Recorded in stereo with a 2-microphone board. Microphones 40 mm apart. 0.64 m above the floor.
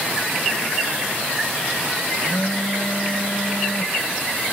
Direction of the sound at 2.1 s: 65° left (ahead or behind).